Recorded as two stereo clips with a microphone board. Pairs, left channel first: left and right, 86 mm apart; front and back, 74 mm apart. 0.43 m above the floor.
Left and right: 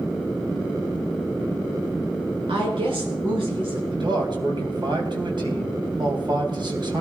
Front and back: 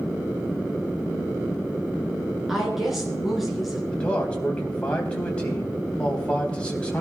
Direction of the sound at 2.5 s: 95° right.